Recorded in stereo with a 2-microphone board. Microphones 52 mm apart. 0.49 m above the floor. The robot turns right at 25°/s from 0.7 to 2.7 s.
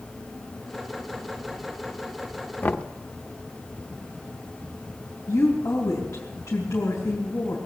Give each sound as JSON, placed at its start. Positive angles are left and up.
{"t": 2.6, "sound": "knocking", "side_deg": 35, "distance_m": 0.6}
{"t": 5.3, "sound": "a woman speaking", "side_deg": 75, "distance_m": 3.5}